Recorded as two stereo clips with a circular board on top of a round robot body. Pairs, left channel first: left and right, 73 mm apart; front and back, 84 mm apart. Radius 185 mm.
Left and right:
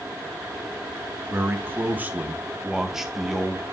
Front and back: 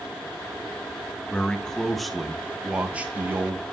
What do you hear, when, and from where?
1.3 s a man speaking: 70° right, 1.5 m; by 3.6 s 165° left, 1.4 m